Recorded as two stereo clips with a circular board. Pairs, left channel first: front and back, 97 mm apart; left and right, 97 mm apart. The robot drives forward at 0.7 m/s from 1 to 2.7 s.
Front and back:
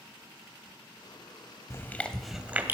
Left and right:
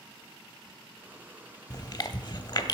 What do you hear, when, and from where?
1.7 s chewing: 55° left, 0.8 m; by 2.7 s 120° left, 0.8 m